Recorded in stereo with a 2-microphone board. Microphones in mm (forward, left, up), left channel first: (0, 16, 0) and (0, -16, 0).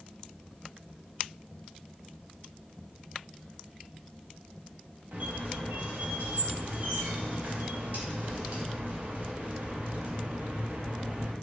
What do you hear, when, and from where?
5.1 s a squeak: 70° right (ahead or behind), 0.8 m